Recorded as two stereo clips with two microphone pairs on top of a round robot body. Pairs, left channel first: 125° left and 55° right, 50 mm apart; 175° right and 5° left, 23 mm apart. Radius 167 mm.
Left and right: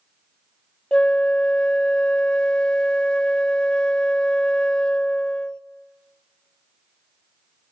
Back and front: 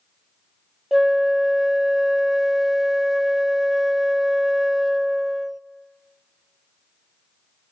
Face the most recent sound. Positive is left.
turn(degrees=65)